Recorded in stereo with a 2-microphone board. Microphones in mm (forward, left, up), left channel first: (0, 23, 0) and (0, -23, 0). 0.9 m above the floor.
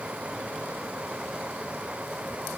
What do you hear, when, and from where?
Only background noise.